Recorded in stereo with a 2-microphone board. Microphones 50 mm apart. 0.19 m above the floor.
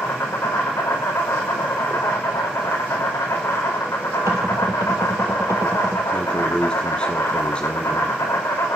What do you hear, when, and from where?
0.0 s an insect: 80° left, 5 m
4.3 s knocking: 75° right (ahead or behind), 3 m
6.1 s a man speaking: 20° left (ahead or behind), 1.5 m